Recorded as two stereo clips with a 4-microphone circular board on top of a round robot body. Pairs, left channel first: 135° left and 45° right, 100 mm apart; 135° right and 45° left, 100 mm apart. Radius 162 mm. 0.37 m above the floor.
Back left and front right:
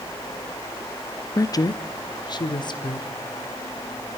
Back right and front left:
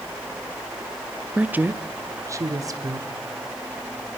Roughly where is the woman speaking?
Behind left.